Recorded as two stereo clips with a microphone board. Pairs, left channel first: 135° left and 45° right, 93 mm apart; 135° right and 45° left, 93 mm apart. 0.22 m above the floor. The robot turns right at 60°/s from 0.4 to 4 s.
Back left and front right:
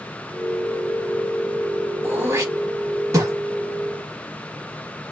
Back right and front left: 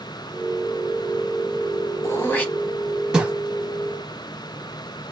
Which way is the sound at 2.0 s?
95° right.